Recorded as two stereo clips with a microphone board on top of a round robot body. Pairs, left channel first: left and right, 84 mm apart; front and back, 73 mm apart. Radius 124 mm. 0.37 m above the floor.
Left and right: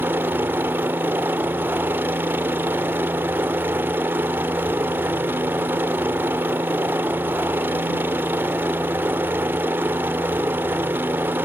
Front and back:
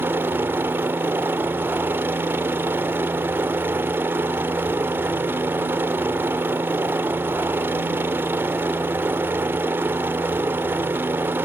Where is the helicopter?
140° right.